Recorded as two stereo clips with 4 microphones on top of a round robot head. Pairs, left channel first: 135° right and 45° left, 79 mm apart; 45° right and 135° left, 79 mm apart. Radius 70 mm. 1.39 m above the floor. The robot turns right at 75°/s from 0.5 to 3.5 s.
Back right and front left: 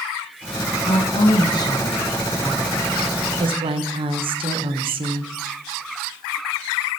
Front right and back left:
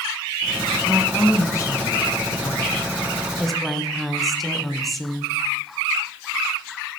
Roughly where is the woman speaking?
Behind right.